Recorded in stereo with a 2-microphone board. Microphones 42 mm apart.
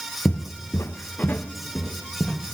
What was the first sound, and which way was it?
Footsteps, 45° left (ahead or behind).